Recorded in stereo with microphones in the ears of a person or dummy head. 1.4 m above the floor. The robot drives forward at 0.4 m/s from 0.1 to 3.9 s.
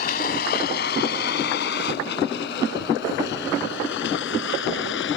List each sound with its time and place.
0.0 s a vehicle: 55° left (ahead or behind); by 5.2 s 75° left (ahead or behind)